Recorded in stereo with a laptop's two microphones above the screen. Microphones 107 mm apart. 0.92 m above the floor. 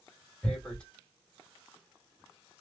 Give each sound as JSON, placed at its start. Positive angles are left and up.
{"t": 0.4, "sound": "tearing paper", "side_deg": 10, "distance_m": 1.6}